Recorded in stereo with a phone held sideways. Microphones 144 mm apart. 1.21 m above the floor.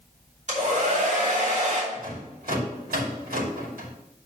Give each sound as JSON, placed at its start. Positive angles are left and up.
{"t": 0.5, "sound": "a hair dryer", "side_deg": -55, "distance_m": 3.0}
{"t": 1.9, "sound": "a rattle", "side_deg": -80, "distance_m": 2.5}